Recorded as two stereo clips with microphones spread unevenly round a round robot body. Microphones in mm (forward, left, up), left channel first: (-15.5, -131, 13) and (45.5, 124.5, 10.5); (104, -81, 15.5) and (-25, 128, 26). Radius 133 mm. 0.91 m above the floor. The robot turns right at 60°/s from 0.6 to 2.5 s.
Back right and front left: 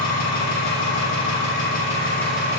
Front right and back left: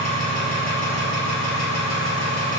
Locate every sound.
0.0 s an engine running: 115° right, 1.7 m; by 2.6 s straight ahead, 1.7 m